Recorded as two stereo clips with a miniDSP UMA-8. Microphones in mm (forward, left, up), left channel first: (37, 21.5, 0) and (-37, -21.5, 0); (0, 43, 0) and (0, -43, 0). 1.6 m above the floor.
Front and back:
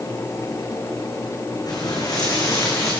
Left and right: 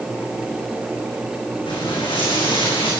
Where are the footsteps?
70° left, 8 m; by 2.9 s 85° left, 8.5 m.